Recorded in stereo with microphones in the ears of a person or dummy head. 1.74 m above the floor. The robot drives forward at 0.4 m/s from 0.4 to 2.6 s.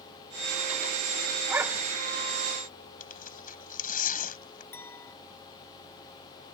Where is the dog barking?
15° right (ahead or behind).